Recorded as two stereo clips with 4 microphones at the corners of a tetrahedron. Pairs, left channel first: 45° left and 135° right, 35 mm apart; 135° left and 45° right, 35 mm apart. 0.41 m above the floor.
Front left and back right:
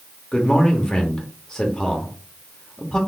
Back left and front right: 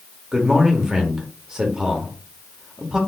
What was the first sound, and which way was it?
A man speaking, 10° left.